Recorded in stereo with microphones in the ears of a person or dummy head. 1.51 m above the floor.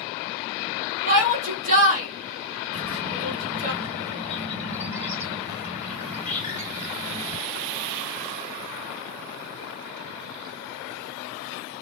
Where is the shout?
40° right (ahead or behind), 2.0 m.